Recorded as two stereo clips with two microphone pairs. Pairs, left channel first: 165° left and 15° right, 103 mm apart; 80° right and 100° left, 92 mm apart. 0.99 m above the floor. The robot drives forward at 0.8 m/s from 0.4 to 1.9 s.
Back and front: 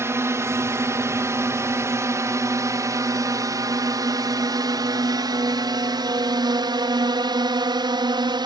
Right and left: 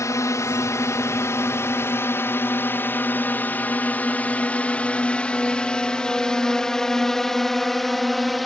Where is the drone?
60° right; by 8.5 s 5° left.